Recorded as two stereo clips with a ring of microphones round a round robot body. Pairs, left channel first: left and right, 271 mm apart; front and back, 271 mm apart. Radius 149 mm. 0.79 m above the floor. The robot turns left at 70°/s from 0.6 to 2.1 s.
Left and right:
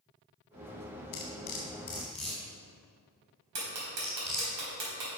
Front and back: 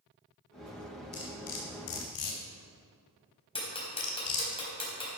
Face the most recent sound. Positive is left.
turn(degrees=-70)